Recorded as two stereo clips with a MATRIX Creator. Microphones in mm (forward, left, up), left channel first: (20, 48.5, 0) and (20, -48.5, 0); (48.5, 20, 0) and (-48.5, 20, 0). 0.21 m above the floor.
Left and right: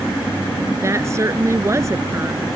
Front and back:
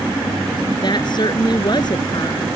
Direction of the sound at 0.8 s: 35° right.